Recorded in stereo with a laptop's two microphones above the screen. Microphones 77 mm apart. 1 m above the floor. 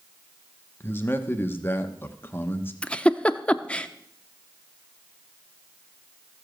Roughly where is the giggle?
Centre.